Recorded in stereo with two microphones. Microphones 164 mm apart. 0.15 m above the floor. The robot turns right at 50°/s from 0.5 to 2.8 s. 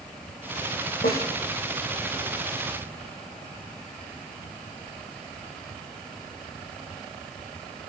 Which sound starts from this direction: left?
A snare drum, at 1.0 s.